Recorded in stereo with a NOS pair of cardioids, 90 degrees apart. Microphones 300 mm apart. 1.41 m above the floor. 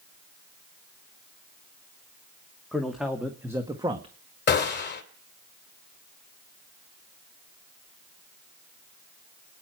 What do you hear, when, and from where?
2.7 s a man speaking: straight ahead, 2.5 m; by 4.2 s 20° right, 1.4 m
4.5 s a gunshot: 35° left, 3 m